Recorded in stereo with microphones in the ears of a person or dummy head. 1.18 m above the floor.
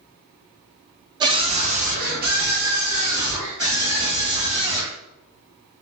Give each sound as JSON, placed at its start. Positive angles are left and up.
{"t": 1.2, "sound": "a scream", "side_deg": -25, "distance_m": 0.8}